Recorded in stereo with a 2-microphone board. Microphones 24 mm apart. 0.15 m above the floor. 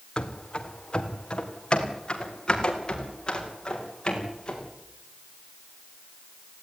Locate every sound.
0.2 s running footsteps: 45° left (ahead or behind), 2 m; by 4.7 s 40° left (ahead or behind), 7.5 m